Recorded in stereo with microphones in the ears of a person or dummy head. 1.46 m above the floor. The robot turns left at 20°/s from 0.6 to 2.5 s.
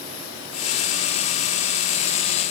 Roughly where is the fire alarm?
No fire alarm in this recording.